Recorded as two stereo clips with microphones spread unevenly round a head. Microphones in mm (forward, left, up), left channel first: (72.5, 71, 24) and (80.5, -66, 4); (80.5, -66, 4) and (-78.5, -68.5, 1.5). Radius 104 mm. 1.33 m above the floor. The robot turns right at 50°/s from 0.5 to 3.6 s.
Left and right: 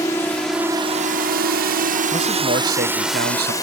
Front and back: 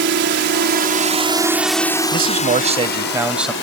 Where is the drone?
170° left; by 3.6 s 30° left.